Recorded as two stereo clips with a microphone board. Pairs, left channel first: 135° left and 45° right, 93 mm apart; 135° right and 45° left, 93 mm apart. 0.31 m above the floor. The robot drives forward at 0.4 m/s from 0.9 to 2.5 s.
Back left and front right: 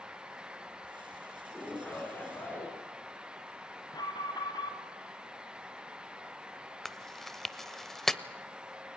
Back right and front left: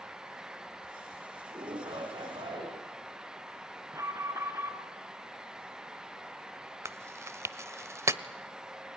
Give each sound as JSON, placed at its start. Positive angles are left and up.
{"t": 1.5, "sound": "a shout", "azimuth_deg": 65, "distance_m": 3.0}
{"t": 3.9, "sound": "an alarm", "azimuth_deg": 100, "distance_m": 2.5}
{"t": 6.8, "sound": "chewing", "azimuth_deg": 55, "distance_m": 0.8}